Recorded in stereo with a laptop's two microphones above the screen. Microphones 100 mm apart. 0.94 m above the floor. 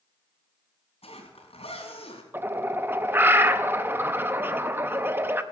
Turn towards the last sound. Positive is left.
turn(degrees=-20)  # may be behind; listen again after turning